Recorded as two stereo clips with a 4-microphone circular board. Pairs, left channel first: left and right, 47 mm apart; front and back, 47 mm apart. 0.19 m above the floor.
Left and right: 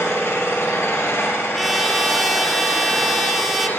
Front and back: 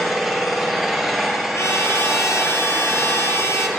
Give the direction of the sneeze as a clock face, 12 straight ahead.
No sneeze in this recording.